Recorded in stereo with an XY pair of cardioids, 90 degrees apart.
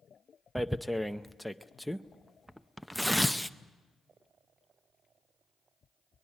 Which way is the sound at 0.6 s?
Straight ahead.